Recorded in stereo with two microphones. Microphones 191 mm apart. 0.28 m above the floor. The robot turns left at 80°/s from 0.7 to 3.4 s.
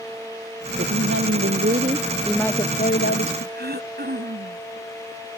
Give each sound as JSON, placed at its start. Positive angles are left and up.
{"t": 0.8, "sound": "a woman speaking", "azimuth_deg": -55}
{"t": 3.5, "sound": "throat clearing", "side_deg": -55}